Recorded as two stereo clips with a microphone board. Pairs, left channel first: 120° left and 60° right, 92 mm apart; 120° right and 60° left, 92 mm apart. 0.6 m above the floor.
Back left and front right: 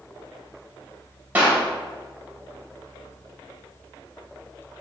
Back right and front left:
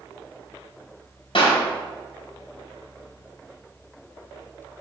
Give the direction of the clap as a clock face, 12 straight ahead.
4 o'clock.